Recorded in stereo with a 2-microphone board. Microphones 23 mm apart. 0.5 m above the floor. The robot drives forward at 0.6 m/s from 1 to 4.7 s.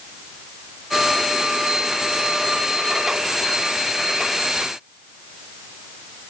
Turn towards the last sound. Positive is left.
No sound to turn to.